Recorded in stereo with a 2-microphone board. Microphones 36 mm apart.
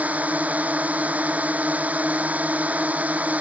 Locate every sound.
0.0 s a drone: 45° right (ahead or behind)